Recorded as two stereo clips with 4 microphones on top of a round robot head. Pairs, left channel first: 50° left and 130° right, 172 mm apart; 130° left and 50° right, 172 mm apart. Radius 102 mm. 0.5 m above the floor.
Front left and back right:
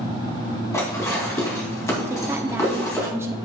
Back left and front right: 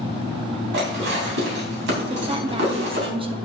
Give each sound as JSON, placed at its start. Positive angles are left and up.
{"t": 0.7, "sound": "dishes clattering", "azimuth_deg": -25, "distance_m": 3.0}
{"t": 2.1, "sound": "a woman speaking", "azimuth_deg": -65, "distance_m": 0.9}